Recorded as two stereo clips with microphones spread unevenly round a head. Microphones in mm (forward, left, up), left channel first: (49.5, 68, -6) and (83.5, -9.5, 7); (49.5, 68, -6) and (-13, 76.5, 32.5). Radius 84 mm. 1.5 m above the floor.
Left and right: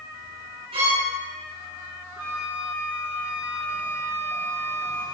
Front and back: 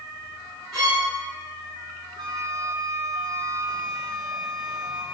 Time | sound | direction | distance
0.7 | a violin | 105° right | 8.5 m
2.2 | a flute | 150° right | 1.5 m